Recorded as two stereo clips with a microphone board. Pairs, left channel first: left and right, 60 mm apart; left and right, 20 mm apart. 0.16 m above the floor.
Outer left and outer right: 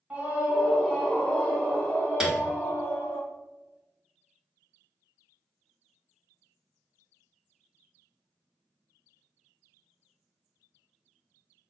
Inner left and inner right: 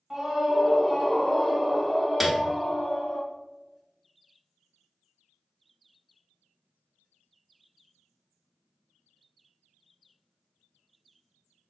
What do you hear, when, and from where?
0.1 s a scream: 20° right (ahead or behind), 1.1 m; by 3.2 s 45° left (ahead or behind), 1.6 m
2.2 s a piano: 10° right (ahead or behind), 0.9 m